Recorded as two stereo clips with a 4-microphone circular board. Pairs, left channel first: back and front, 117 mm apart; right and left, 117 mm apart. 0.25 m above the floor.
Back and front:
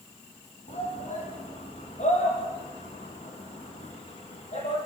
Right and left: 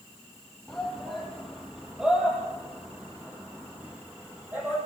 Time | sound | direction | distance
0.7 | a shout | straight behind | 8 m